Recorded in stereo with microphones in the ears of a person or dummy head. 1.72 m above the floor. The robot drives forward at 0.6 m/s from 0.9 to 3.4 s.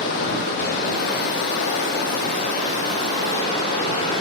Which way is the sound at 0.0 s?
50° left (ahead or behind).